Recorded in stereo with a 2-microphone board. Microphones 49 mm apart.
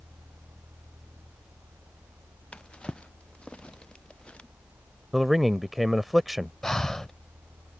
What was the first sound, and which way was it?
A drawer, 25° left (ahead or behind).